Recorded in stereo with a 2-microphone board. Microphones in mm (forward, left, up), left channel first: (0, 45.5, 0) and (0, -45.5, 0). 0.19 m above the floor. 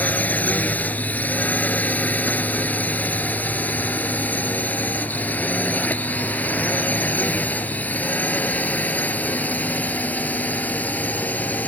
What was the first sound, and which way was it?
A drone, 20° left (ahead or behind).